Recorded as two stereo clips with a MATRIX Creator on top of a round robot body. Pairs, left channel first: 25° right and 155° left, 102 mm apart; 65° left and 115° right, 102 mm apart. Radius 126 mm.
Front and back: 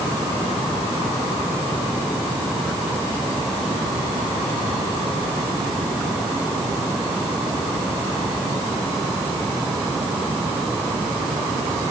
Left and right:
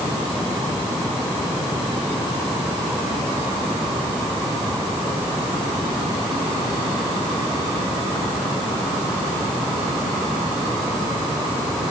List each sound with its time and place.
Only background noise.